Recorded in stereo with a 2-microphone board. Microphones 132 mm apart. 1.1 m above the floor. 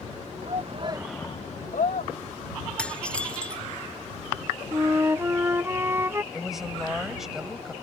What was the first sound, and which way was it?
A shout, 60° right (ahead or behind).